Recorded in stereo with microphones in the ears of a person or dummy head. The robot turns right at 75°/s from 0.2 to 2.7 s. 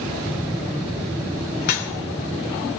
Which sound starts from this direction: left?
Dripping, at 1.6 s.